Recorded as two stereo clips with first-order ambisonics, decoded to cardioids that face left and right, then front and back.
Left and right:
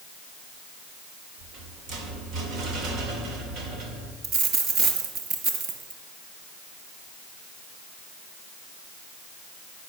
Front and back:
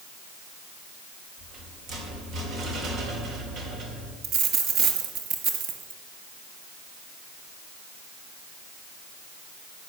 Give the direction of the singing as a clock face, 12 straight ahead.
No singing in this recording.